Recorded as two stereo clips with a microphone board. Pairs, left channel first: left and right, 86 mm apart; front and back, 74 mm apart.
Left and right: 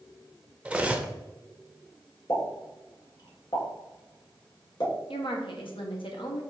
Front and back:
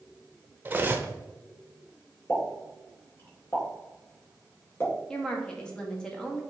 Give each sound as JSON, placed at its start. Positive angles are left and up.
{"t": 0.7, "sound": "cutlery clinking", "azimuth_deg": -150, "distance_m": 0.7}
{"t": 2.3, "sound": "a pop", "azimuth_deg": 60, "distance_m": 2.5}
{"t": 5.1, "sound": "a woman speaking", "azimuth_deg": 80, "distance_m": 1.5}